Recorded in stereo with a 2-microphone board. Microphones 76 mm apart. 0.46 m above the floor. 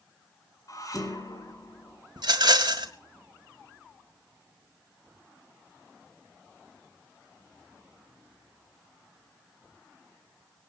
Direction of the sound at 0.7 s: 50° left (ahead or behind).